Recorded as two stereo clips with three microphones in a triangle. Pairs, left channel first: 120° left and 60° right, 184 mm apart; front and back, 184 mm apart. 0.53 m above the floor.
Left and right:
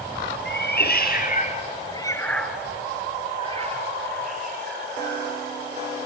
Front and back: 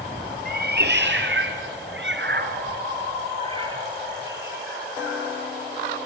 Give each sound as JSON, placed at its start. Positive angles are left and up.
{"t": 0.5, "sound": "a cat meowing", "azimuth_deg": 145, "distance_m": 3.5}